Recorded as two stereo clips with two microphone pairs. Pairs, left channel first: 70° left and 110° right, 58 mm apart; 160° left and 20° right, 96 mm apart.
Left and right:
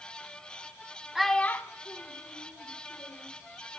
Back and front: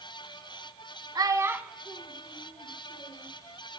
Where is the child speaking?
30° right, 0.9 m; by 3.3 s 85° left, 3 m.